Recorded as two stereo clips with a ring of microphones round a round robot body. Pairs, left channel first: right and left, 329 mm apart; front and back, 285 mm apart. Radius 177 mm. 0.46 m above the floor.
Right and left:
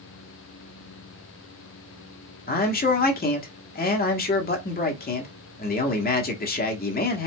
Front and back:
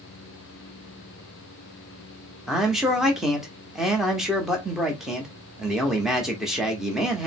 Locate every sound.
2.5 s a man speaking: 95° right, 1.1 m